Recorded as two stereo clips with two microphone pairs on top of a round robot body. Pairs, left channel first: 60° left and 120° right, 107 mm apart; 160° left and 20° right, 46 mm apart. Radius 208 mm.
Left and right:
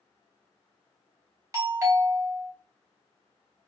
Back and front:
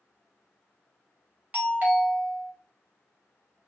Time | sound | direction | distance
1.5 | a doorbell | 65° right | 2.0 m